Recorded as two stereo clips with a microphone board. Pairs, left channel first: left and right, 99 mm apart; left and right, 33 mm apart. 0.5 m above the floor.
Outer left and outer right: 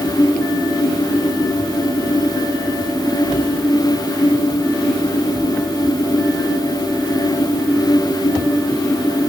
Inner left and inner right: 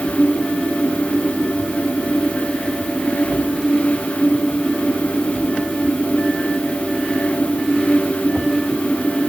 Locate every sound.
Only background noise.